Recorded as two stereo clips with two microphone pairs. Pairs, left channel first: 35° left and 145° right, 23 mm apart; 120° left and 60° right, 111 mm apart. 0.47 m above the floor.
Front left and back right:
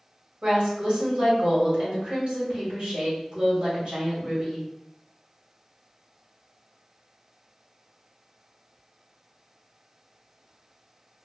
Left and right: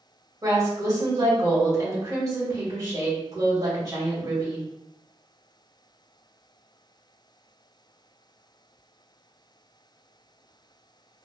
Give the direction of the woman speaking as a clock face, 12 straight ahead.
4 o'clock.